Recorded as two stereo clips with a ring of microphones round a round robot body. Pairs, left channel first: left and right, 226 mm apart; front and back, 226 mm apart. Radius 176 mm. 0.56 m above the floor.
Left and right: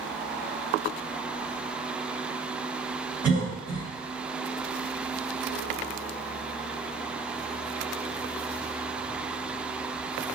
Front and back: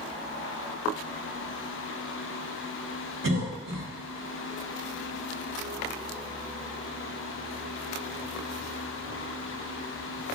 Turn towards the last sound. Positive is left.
turn(degrees=-160)